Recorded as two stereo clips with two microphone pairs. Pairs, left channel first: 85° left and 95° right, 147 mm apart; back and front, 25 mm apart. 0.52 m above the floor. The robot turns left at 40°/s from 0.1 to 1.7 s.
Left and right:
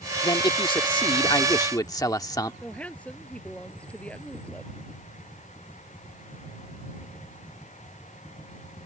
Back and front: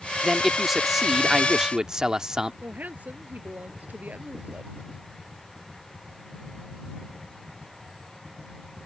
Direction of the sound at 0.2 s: 105° left.